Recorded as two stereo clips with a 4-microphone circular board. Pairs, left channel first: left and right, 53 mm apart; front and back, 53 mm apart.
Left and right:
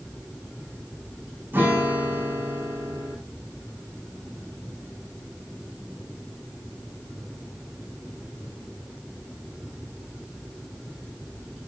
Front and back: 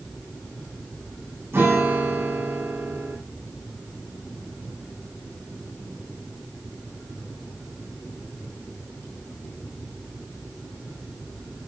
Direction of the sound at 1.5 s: 140° right.